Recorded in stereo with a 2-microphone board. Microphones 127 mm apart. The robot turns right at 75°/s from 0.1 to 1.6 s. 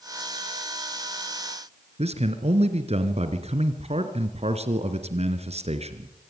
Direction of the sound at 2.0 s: 55° right (ahead or behind).